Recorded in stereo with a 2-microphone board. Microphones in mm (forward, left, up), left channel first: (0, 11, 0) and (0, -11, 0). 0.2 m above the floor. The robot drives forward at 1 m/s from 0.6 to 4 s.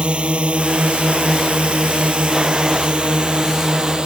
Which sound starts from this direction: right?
A drone, at 0.0 s.